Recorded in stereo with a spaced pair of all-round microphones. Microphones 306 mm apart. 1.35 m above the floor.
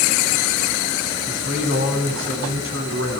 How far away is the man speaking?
About 8.5 m.